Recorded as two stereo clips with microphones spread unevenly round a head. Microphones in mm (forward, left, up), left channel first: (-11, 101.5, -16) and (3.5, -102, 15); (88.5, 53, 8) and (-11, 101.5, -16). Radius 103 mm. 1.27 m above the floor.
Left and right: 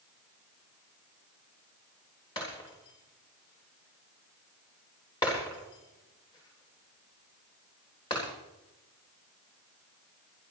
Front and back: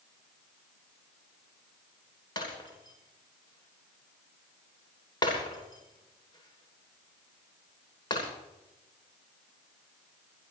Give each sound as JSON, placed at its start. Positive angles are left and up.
{"t": 2.4, "sound": "breaking glass", "azimuth_deg": 25, "distance_m": 10.0}